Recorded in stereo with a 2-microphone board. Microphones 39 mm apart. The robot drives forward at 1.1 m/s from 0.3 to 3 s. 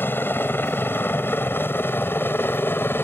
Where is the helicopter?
60° left (ahead or behind).